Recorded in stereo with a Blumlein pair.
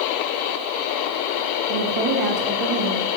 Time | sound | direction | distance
1.7 | a woman speaking | 40° right | 1.5 m